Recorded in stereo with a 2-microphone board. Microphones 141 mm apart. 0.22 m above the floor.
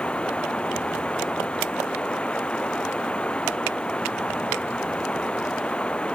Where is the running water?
10° left (ahead or behind).